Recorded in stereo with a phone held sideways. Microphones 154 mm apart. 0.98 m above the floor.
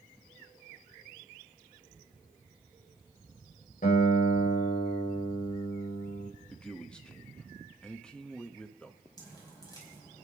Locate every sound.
3.8 s a guitar: 70° left (ahead or behind), 3.5 m
6.5 s a man speaking: 5° left (ahead or behind), 1.2 m
9.2 s dripping: 25° left (ahead or behind), 5 m